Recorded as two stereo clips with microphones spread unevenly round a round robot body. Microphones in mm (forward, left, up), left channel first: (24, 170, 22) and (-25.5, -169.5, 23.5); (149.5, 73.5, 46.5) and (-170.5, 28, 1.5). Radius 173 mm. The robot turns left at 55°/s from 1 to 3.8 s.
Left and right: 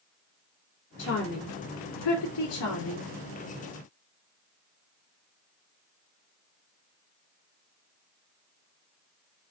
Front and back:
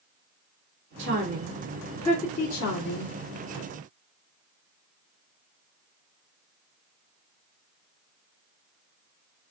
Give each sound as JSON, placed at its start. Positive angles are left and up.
{"t": 1.0, "sound": "a woman speaking", "azimuth_deg": 150, "distance_m": 2.0}